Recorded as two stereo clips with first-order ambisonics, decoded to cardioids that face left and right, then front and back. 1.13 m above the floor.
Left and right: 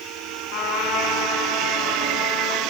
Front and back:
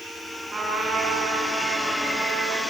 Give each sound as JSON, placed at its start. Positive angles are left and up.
{"t": 0.5, "sound": "a trumpet", "azimuth_deg": 115, "distance_m": 5.5}